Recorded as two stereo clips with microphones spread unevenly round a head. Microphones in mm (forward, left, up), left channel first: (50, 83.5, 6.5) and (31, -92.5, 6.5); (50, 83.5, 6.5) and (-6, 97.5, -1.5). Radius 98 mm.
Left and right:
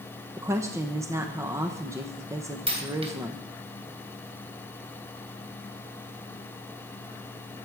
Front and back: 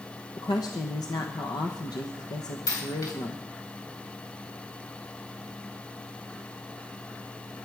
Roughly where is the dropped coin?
Ahead right.